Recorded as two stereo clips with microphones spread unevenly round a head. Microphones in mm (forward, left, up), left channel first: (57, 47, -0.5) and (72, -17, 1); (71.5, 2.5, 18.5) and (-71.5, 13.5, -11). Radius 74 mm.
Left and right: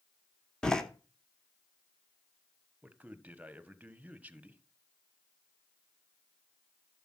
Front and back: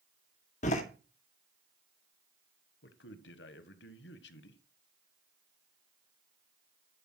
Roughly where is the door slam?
Ahead left.